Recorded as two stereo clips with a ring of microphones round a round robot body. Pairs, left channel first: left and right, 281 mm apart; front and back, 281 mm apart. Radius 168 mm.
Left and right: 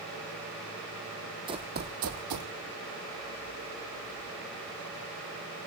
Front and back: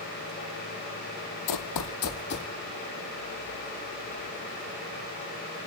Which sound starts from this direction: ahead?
Running footsteps, at 1.5 s.